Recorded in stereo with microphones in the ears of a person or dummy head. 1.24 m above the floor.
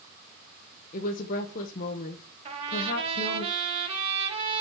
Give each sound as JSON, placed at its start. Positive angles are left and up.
{"t": 0.9, "sound": "a woman speaking", "side_deg": 50, "distance_m": 1.1}
{"t": 2.5, "sound": "a trumpet", "side_deg": -30, "distance_m": 2.5}